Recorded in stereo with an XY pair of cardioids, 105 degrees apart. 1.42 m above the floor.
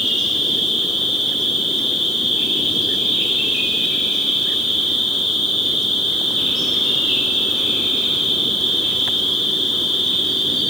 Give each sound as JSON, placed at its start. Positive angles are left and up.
{"t": 0.0, "sound": "an insect", "azimuth_deg": 35, "distance_m": 1.4}